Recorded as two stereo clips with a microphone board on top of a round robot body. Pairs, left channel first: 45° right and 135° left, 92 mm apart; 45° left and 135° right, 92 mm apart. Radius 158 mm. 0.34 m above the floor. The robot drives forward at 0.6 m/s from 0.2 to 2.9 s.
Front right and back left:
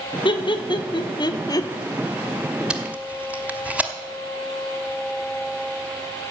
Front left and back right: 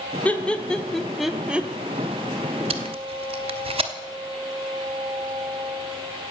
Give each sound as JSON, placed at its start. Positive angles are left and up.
{"t": 0.2, "sound": "laughter", "azimuth_deg": -30, "distance_m": 1.5}
{"t": 2.7, "sound": "tape being pulled", "azimuth_deg": -145, "distance_m": 0.7}